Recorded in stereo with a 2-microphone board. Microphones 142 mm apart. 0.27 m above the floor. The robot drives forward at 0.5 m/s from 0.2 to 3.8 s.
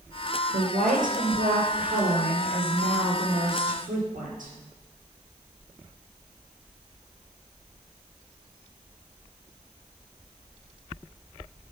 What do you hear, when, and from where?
0.5 s a woman speaking: 75° right (ahead or behind), 4.5 m